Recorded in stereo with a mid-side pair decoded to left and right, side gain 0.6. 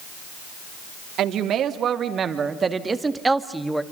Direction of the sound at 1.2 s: 55° right.